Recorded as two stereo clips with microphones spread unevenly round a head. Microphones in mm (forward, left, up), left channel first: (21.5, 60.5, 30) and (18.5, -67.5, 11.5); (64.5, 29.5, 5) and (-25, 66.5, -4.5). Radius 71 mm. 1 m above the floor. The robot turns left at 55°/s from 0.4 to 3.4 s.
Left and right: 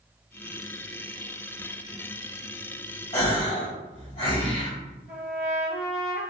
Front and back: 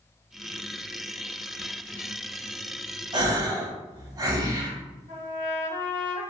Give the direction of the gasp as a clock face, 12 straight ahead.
7 o'clock.